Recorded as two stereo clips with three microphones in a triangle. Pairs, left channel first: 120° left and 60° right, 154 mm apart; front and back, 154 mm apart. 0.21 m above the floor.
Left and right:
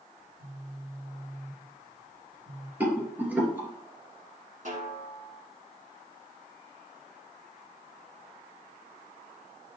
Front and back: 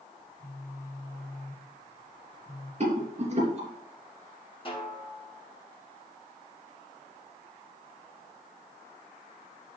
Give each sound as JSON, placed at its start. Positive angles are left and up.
{"t": 0.2, "sound": "a phone buzzing", "azimuth_deg": -60, "distance_m": 3.5}
{"t": 2.8, "sound": "a rattle", "azimuth_deg": -140, "distance_m": 3.0}
{"t": 4.7, "sound": "a snare drum", "azimuth_deg": -45, "distance_m": 1.9}